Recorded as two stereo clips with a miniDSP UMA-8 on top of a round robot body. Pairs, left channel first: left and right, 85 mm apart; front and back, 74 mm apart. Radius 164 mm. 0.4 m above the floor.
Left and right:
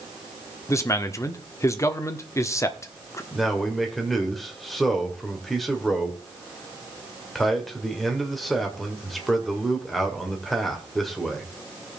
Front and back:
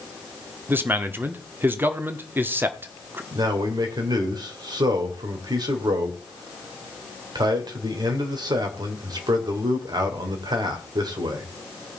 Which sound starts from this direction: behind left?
A man speaking, at 0.7 s.